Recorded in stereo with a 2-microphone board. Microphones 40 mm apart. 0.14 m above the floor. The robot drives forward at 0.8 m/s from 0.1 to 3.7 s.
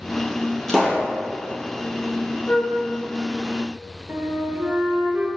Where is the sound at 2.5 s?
60° left (ahead or behind), 1.6 m.